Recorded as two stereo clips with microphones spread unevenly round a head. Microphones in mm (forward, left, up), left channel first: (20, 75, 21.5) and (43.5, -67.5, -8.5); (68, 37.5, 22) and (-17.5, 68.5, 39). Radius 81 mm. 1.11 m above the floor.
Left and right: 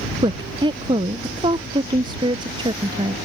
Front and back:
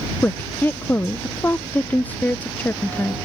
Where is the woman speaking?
70° right.